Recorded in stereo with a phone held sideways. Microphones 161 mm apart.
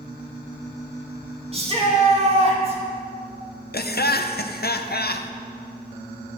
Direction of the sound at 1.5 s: 40° right (ahead or behind).